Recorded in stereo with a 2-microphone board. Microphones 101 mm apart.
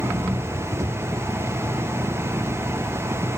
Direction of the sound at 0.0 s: 35° right (ahead or behind).